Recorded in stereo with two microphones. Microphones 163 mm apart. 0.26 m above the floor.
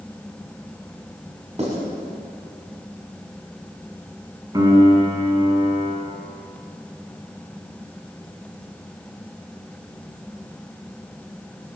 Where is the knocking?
I don't hear knocking.